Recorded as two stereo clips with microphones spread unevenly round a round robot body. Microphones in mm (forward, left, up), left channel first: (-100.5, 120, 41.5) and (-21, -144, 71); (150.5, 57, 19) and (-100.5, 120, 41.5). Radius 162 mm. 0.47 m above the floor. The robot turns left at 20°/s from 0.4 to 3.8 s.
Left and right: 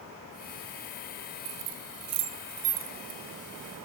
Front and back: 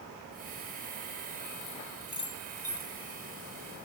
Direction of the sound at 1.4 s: 90° right.